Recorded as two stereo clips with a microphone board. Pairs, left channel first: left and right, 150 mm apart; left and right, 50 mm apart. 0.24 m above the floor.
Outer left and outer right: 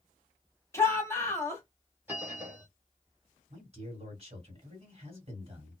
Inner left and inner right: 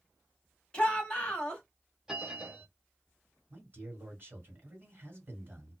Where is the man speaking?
45° right (ahead or behind), 2 m.